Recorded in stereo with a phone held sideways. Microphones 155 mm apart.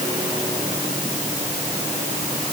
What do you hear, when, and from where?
Only background noise.